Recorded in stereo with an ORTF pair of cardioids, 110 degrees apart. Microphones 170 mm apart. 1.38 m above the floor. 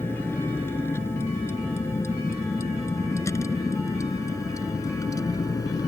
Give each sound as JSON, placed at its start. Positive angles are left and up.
{"t": 0.0, "sound": "a vehicle", "azimuth_deg": 15}